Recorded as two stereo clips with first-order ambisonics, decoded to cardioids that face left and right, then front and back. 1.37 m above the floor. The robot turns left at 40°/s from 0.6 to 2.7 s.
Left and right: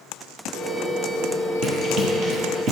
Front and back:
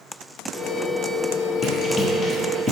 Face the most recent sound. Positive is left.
turn(degrees=-90)